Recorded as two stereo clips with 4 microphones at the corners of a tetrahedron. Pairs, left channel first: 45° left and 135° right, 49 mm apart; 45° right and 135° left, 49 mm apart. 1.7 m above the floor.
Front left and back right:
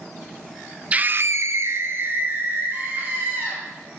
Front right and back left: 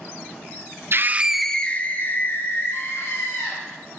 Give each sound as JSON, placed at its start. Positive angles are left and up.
{"t": 0.9, "sound": "a scream", "azimuth_deg": 165, "distance_m": 0.9}